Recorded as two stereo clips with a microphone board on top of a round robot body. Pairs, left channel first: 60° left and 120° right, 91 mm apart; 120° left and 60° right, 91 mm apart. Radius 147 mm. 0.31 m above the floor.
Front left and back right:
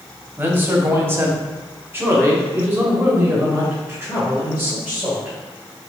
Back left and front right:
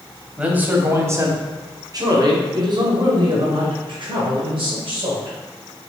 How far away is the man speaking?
About 1.2 m.